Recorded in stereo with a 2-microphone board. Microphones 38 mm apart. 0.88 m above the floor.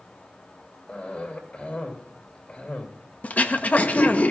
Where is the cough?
35° left (ahead or behind), 4 m.